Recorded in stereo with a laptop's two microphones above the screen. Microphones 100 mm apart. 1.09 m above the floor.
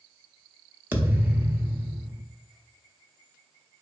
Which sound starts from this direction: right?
A thud, at 0.9 s.